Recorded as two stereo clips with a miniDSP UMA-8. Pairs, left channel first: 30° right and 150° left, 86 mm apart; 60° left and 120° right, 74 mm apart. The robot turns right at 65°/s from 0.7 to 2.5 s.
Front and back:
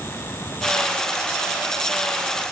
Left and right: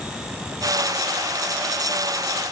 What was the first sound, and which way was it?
Only background noise.